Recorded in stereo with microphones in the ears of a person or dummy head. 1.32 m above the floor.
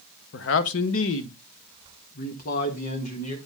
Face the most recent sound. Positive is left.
turn(degrees=45)  # may be behind; listen again after turning